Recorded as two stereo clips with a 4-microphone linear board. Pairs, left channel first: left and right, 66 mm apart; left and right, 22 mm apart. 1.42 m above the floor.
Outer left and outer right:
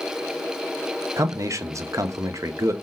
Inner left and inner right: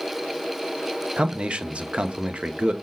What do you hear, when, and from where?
1.2 s a man speaking: 50° right (ahead or behind), 0.5 m